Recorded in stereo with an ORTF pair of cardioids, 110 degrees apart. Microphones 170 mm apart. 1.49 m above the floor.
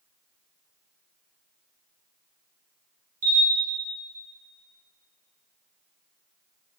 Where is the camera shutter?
60° right, 2.5 m.